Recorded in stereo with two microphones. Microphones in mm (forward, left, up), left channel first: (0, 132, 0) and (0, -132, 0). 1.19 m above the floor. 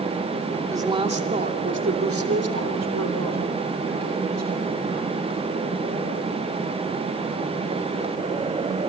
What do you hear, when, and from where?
0.7 s a woman speaking: 10° right (ahead or behind), 2.5 m; by 5.1 s 85° right, 6.5 m